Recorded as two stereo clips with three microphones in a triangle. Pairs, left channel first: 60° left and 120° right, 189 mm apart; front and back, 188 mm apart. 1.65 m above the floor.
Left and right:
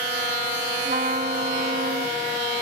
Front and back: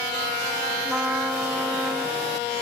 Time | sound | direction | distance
0.8 | a trumpet | 95° right | 0.7 m